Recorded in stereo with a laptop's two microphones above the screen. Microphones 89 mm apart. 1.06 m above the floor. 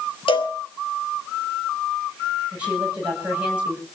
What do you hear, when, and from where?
0.3 s a cowbell: 80° left, 2.5 m
2.5 s a woman speaking: 15° right (ahead or behind), 8 m